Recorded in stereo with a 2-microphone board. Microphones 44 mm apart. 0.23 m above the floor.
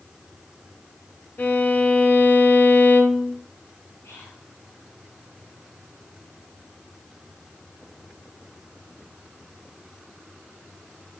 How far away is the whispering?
About 4 m.